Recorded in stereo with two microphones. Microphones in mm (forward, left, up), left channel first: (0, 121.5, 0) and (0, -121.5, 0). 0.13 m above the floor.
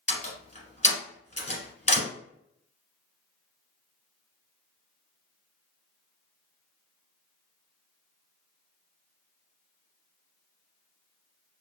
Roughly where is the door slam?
Left.